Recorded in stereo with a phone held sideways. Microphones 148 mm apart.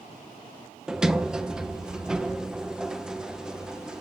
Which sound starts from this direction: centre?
A sliding door, at 0.9 s.